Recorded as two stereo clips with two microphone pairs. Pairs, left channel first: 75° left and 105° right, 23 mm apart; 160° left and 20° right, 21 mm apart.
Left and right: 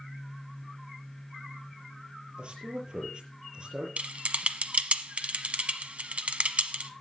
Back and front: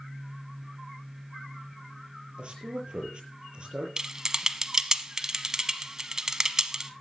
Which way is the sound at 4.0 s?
80° right.